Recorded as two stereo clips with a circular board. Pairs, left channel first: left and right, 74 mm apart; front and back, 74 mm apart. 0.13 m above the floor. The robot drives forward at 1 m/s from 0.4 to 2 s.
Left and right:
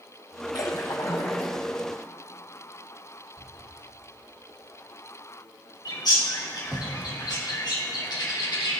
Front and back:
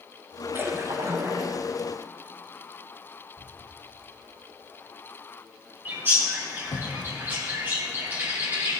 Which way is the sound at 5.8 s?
120° left.